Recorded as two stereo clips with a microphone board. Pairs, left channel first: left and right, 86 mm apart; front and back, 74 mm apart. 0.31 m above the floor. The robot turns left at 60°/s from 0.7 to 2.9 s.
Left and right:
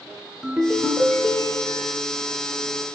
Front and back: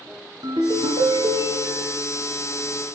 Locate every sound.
0.4 s a ringtone: 170° right, 1.9 m; by 2.0 s 110° left, 1.9 m